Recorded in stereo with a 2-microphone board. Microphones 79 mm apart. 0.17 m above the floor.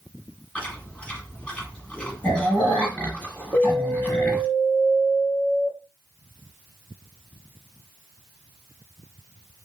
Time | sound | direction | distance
0.6 | chewing | 15° left (ahead or behind) | 1.5 m
3.5 | an alarm | 20° right (ahead or behind) | 0.9 m